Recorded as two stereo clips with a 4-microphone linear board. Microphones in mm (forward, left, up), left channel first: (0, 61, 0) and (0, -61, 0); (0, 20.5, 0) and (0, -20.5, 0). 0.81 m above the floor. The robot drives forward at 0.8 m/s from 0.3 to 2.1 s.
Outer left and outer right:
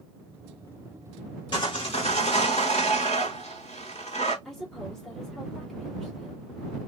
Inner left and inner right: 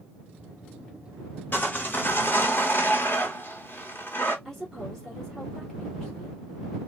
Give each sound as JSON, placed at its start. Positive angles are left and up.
{"t": 1.5, "sound": "sawing", "side_deg": 45, "distance_m": 1.4}
{"t": 4.5, "sound": "a woman speaking", "side_deg": 5, "distance_m": 1.6}